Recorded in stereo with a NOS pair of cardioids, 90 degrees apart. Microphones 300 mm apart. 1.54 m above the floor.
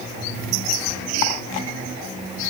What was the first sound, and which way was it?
Only background noise.